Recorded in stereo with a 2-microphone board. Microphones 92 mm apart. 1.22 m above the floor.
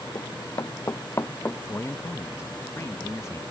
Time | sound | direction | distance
0.1 | running footsteps | 40° left (ahead or behind) | ?
1.7 | a man speaking | 30° left (ahead or behind) | ?